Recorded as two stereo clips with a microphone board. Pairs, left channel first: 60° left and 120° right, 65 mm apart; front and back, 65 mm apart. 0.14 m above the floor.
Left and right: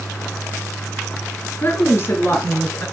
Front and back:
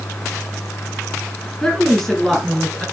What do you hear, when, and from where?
1.6 s a woman speaking: 75° left, 1.3 m; by 2.9 s 85° left, 2 m